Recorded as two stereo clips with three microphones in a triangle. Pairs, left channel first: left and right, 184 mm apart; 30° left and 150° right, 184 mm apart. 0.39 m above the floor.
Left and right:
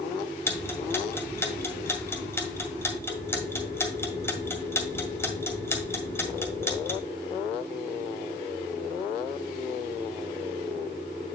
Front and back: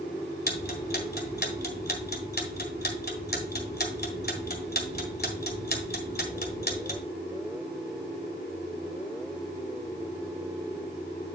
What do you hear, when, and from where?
0.5 s ticking: 15° left, 1.8 m